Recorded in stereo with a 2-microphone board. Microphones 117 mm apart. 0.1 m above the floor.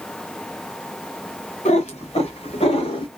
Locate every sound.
1.6 s a cat meowing: 70° left (ahead or behind), 1.8 m; by 3.1 s 45° left (ahead or behind), 1.8 m